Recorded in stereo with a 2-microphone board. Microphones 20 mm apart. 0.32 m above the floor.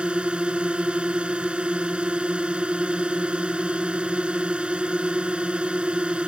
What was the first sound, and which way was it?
A drone, 65° right (ahead or behind).